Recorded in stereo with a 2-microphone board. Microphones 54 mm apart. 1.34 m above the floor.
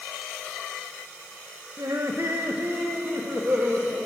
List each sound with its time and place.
1.8 s laughter: 65° right (ahead or behind), 1.3 m; by 4.0 s 45° right (ahead or behind), 2.5 m